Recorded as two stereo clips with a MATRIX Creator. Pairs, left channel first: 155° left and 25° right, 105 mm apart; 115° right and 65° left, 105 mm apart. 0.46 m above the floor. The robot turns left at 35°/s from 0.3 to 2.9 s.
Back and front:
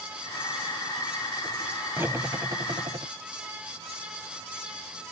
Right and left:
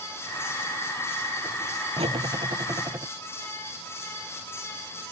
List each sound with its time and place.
2.0 s cutlery clinking: 45° left; by 3.1 s 15° left